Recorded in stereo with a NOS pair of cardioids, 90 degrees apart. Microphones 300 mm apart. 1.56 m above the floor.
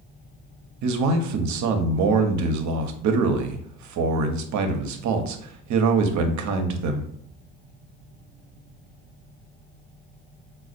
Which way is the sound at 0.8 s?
70° right.